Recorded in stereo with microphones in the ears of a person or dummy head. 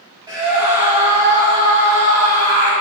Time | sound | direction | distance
0.3 | a scream | 20° right (ahead or behind) | 4.5 m